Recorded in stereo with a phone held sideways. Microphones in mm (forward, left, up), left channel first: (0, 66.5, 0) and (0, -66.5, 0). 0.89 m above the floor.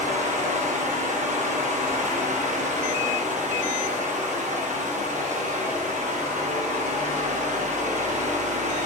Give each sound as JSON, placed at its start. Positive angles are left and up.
{"t": 0.0, "sound": "a fan", "side_deg": -65, "distance_m": 0.9}